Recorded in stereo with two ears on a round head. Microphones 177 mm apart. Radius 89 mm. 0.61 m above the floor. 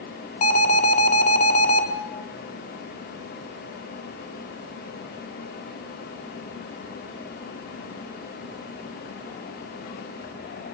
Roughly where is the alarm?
Left.